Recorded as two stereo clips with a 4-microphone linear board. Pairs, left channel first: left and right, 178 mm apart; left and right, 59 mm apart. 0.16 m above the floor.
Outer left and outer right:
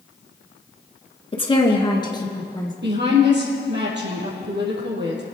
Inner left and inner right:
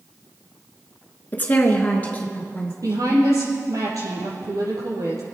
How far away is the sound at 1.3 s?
About 2.0 m.